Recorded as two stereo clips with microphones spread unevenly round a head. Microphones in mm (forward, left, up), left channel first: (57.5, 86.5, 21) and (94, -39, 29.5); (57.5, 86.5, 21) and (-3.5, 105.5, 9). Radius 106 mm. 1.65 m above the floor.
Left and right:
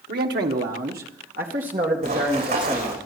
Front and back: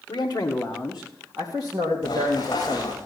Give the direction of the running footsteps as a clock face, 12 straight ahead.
3 o'clock.